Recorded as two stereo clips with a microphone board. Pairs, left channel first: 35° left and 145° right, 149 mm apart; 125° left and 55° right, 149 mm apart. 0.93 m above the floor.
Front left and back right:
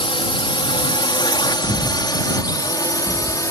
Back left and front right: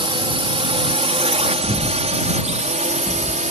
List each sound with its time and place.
0.0 s a drone: 10° right; by 3.5 s 30° right
1.6 s breathing: 75° left